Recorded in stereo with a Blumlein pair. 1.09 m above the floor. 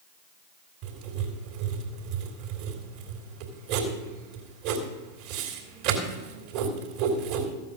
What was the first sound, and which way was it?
Writing, 45° right.